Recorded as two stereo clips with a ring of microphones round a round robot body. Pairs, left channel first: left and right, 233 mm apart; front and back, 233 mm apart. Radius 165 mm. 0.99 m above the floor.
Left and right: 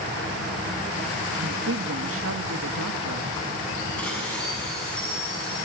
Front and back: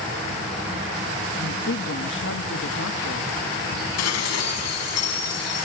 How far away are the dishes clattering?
About 6 m.